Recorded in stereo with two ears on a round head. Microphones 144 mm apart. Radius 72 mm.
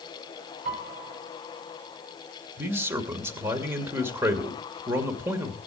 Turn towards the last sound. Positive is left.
turn(degrees=-15)  # may be behind; listen again after turning